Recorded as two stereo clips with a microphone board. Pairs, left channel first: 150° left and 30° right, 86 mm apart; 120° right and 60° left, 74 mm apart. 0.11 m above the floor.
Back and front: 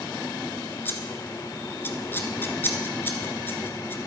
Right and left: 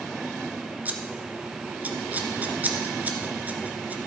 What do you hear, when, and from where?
0.8 s scissors: 110° left, 1.1 m